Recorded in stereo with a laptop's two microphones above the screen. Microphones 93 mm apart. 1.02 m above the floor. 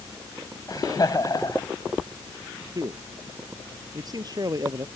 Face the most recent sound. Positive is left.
turn(degrees=-45)  # may be behind; listen again after turning